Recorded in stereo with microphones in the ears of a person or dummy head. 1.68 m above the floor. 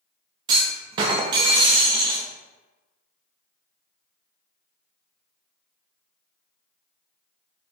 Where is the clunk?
25° right (ahead or behind), 0.6 m.